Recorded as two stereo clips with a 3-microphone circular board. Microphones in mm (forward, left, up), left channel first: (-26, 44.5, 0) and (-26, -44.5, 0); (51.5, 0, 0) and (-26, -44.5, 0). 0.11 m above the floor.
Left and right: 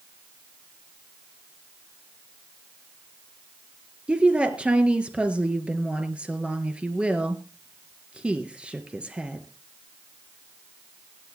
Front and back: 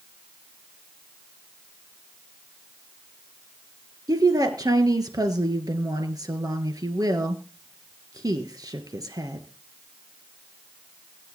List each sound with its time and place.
4.1 s a woman speaking: 165° right, 1.6 m